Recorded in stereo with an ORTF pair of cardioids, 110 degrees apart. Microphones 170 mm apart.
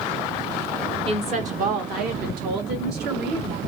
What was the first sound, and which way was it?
A woman speaking, 35° right.